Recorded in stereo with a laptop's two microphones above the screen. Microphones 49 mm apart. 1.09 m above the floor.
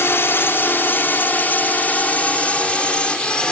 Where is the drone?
50° left (ahead or behind); by 3.5 s 15° left (ahead or behind).